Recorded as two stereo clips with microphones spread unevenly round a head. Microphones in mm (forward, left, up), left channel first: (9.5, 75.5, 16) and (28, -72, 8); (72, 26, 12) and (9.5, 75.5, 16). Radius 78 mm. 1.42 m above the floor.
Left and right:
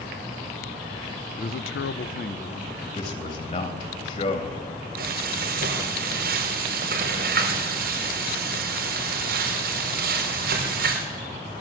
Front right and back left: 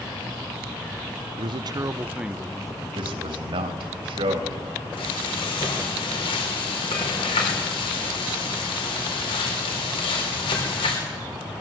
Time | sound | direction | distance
1.4 | a man speaking | 145° left | 0.8 m
3.0 | a man speaking | 145° left | 3 m
5.0 | frying | 65° right | 4 m